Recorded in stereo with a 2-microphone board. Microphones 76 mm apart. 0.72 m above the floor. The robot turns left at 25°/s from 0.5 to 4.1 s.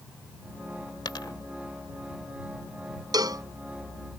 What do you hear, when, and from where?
1.1 s a dropped coin: 70° left (ahead or behind); by 1.3 s 65° left (ahead or behind)
3.1 s a cowbell: 60° right (ahead or behind); by 3.5 s 50° right (ahead or behind)